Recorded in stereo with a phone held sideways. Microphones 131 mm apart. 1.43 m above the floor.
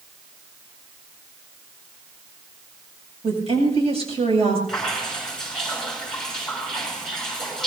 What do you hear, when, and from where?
3.2 s a woman speaking: 50° right (ahead or behind), 7 m
4.7 s dripping: 5° left (ahead or behind), 6 m